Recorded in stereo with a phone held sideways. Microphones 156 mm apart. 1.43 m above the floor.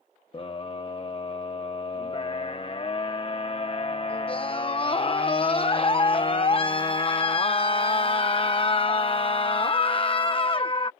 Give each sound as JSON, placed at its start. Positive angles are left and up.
{"t": 0.3, "sound": "a scream", "side_deg": 35}